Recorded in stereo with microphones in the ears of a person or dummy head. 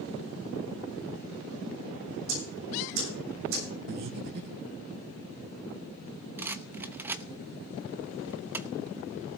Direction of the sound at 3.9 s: 50° right (ahead or behind).